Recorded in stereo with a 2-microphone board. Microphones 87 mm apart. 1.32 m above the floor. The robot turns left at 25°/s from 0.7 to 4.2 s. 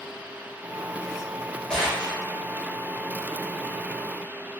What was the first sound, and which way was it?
A gunshot, 10° left (ahead or behind).